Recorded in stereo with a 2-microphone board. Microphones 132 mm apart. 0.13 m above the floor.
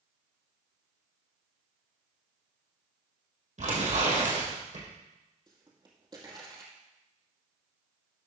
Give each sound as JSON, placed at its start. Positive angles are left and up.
{"t": 3.6, "sound": "tearing paper", "side_deg": -65, "distance_m": 4.0}
{"t": 5.5, "sound": "a pop", "side_deg": -30, "distance_m": 2.5}